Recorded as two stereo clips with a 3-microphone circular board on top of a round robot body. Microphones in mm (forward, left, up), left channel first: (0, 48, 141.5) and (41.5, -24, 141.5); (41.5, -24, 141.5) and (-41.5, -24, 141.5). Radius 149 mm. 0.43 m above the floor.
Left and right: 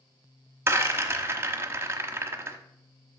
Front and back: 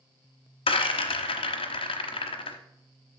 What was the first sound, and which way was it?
A rattle, 5° left.